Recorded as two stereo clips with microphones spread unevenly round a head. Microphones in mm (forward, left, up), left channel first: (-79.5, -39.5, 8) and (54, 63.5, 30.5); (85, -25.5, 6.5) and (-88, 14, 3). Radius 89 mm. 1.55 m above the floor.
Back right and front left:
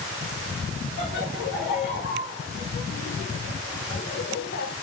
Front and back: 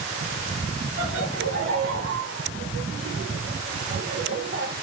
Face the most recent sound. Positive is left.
turn(degrees=-160)